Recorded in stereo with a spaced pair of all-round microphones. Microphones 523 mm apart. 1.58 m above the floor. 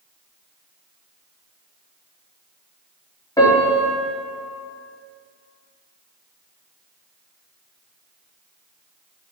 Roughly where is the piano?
Centre.